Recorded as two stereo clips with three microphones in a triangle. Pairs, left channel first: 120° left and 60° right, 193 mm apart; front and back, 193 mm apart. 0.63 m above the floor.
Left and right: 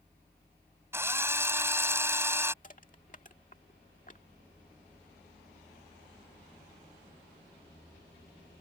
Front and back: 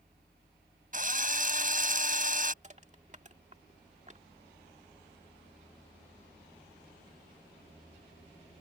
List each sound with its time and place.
0.9 s a drill: 135° right
2.6 s crushing: 145° left